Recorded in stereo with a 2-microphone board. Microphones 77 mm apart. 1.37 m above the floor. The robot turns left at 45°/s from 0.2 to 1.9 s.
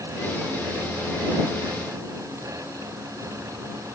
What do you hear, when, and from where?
Only background noise.